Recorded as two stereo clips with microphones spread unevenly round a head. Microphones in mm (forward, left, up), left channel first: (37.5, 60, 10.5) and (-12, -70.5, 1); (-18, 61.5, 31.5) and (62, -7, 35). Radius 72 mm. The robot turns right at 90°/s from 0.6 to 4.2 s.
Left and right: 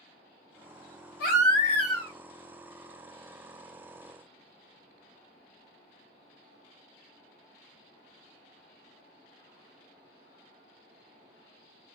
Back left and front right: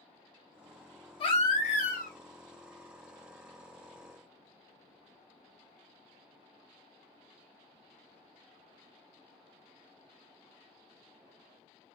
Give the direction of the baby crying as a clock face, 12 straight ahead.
9 o'clock.